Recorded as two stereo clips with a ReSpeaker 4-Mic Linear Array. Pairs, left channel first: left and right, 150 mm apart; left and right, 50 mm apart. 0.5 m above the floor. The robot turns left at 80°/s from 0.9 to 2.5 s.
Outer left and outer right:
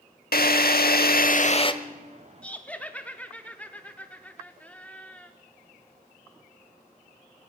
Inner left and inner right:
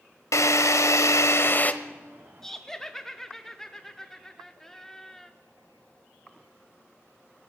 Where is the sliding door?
I don't hear a sliding door.